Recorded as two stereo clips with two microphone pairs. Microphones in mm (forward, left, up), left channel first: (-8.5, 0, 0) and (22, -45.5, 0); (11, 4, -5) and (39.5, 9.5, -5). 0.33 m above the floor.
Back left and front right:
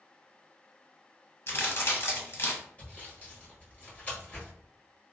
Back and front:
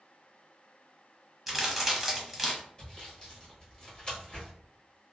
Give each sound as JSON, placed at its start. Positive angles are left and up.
{"t": 1.5, "sound": "a crack", "azimuth_deg": 90, "distance_m": 1.0}
{"t": 2.8, "sound": "sawing", "azimuth_deg": 160, "distance_m": 1.1}